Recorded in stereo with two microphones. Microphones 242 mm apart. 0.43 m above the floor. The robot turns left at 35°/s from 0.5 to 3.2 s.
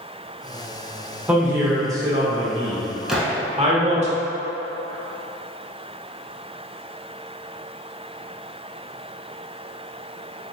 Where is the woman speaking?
5° right (ahead or behind), 0.9 m; by 4.1 s 25° right (ahead or behind), 0.9 m.